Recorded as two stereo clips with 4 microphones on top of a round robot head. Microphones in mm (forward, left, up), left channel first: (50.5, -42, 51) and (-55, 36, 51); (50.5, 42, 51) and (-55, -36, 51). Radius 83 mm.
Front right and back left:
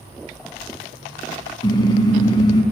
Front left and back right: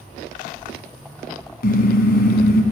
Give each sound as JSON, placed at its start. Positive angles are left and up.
{"t": 1.6, "sound": "a car horn", "azimuth_deg": 25, "distance_m": 3.0}